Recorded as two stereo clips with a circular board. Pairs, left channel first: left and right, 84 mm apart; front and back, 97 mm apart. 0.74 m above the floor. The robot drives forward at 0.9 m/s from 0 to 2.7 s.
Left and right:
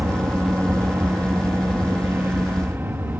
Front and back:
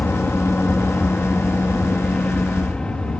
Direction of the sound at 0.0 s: 55° right.